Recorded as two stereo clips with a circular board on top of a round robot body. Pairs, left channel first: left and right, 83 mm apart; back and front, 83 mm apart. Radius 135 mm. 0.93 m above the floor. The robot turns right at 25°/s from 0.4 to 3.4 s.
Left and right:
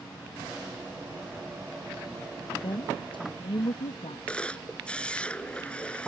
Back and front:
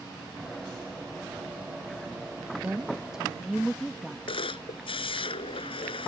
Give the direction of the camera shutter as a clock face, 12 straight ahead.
6 o'clock.